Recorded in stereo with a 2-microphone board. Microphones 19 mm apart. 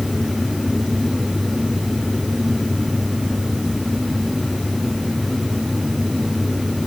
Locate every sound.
Only background noise.